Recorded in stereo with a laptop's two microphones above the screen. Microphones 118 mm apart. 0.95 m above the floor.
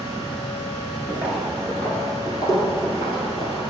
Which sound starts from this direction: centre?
Footsteps, at 1.1 s.